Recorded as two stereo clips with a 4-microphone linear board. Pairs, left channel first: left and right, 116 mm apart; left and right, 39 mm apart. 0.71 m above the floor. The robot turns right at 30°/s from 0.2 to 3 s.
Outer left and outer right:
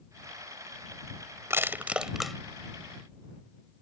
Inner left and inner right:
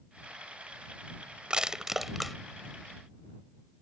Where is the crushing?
20° right (ahead or behind); by 2.4 s 5° left (ahead or behind).